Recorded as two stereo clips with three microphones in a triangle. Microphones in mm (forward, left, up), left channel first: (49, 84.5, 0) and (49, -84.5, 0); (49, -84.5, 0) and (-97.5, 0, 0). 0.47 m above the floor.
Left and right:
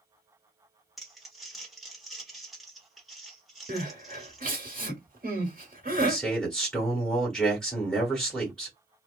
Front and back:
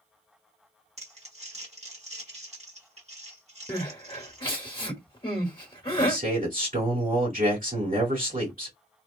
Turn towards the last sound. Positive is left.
turn(degrees=175)